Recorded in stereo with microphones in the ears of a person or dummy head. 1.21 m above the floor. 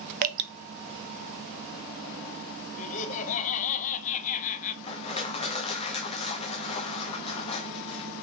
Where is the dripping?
45° right (ahead or behind), 0.5 m.